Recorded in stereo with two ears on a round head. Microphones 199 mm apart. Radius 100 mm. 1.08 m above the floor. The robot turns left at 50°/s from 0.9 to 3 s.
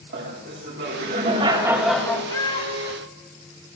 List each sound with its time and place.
0.1 s laughter: 130° right, 2 m; by 2.2 s 165° left, 2 m
2.3 s a cat meowing: 165° left, 1.1 m; by 3.0 s 135° left, 1.1 m